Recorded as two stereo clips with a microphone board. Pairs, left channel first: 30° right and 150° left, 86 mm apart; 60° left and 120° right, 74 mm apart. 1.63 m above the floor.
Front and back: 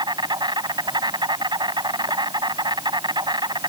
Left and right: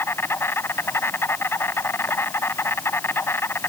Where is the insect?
120° left.